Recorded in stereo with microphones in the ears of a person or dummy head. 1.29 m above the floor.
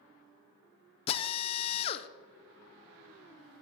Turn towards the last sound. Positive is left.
turn(degrees=35)  # may be behind; listen again after turning